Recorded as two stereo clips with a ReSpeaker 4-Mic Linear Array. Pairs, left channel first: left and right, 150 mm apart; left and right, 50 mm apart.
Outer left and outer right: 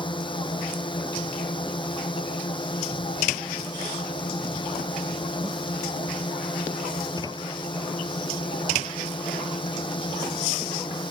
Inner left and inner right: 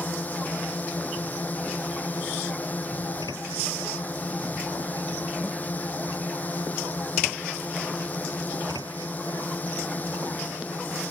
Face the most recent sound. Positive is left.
turn(degrees=35)  # may be behind; listen again after turning